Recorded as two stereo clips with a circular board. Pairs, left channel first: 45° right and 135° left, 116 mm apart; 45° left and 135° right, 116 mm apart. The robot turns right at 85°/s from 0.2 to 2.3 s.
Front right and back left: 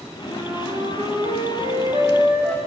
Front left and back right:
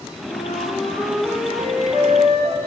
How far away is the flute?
About 9 m.